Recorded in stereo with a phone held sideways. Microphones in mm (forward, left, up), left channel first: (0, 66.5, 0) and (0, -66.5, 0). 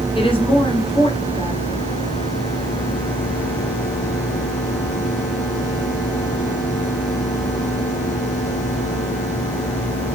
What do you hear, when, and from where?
0.1 s a woman speaking: 40° left (ahead or behind), 5 m